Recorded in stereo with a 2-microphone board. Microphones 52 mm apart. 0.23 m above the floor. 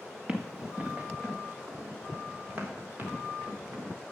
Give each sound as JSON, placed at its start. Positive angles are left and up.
{"t": 0.3, "sound": "running footsteps", "side_deg": -15, "distance_m": 1.6}